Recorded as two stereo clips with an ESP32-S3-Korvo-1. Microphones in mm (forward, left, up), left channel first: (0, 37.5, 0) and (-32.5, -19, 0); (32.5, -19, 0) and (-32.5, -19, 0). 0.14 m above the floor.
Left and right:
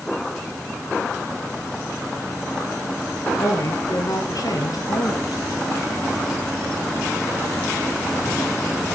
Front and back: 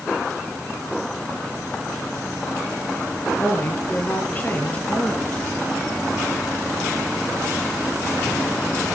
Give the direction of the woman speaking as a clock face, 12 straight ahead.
10 o'clock.